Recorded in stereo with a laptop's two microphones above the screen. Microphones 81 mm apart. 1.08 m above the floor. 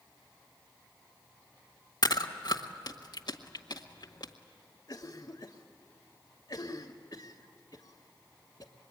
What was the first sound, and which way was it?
Chewing, 60° left (ahead or behind).